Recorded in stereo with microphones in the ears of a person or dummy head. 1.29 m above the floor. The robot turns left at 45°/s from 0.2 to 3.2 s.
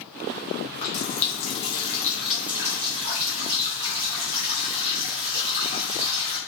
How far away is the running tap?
About 0.7 m.